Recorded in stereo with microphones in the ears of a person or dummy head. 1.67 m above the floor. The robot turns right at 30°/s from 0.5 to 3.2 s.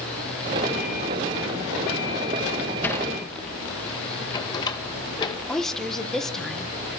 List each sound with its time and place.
2.8 s a sliding door: 5° left (ahead or behind), 1.6 m; by 5.4 s 15° left (ahead or behind), 1.6 m
5.5 s a woman speaking: centre (ahead or behind), 1.8 m